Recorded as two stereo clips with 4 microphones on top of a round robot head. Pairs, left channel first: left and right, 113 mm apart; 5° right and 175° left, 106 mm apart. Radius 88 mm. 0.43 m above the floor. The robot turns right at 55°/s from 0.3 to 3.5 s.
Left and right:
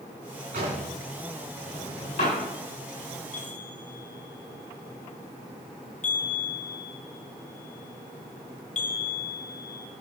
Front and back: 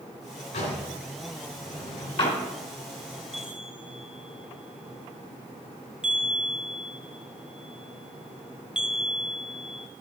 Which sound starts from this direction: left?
A chime, at 3.3 s.